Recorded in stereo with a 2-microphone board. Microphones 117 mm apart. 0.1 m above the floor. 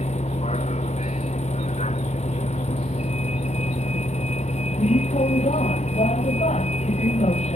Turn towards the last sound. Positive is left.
turn(degrees=85)